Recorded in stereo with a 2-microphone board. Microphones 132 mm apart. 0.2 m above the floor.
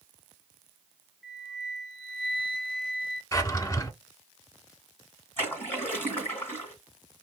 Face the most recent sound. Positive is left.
turn(degrees=15)  # may be behind; listen again after turning